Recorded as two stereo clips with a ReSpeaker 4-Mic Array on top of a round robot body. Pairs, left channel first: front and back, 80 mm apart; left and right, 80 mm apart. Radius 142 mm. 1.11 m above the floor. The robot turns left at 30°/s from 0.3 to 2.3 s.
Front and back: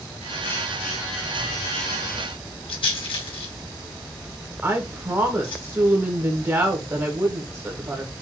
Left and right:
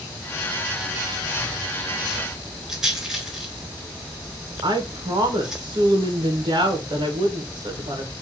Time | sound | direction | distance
2.7 | a rattle | 5° right | 3.5 m
4.6 | a woman speaking | 125° right | 1.5 m